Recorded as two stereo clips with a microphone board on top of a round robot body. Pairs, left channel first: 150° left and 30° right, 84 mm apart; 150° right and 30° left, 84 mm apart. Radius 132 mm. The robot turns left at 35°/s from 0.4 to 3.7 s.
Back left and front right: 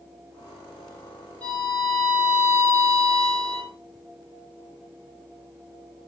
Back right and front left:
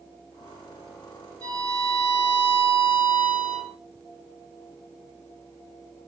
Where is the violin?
75° left, 4 m; by 3.7 s 5° right, 4 m.